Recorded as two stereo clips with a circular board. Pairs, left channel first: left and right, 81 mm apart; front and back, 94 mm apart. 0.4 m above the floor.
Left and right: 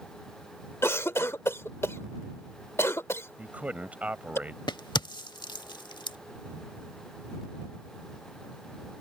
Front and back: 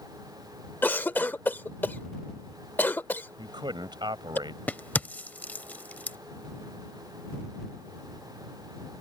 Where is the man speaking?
160° right.